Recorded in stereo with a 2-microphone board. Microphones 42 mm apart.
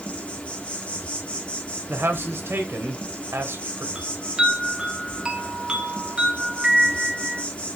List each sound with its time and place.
0.0 s an insect: 30° left (ahead or behind), 1.6 m
1.9 s a man speaking: 75° right (ahead or behind), 1.6 m
4.0 s a chime: 25° right (ahead or behind), 1.4 m